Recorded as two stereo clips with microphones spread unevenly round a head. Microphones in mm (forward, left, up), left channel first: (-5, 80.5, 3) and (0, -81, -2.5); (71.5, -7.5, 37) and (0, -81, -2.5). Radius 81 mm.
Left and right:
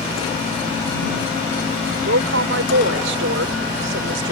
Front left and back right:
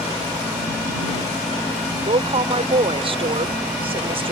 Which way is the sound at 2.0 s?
100° right.